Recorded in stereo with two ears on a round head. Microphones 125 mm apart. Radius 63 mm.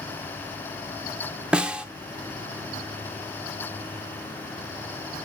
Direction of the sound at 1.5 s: 10° right (ahead or behind).